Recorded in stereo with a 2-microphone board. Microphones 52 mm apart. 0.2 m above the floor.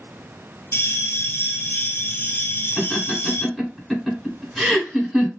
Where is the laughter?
Centre (ahead or behind), 2 m.